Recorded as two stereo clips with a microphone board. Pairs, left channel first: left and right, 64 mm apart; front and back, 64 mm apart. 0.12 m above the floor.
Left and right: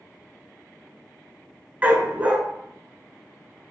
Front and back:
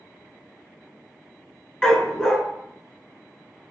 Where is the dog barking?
65° right, 0.6 m.